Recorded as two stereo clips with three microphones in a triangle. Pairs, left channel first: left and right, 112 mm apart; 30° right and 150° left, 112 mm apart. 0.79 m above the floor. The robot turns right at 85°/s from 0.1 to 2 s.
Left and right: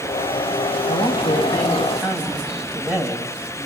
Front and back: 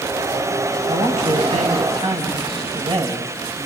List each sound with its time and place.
0.9 s a man speaking: 90° left, 5.5 m; by 3.6 s 170° right, 5.5 m